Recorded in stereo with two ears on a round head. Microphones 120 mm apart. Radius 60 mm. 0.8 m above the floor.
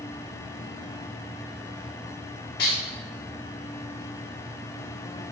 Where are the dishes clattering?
80° left, 1.4 m.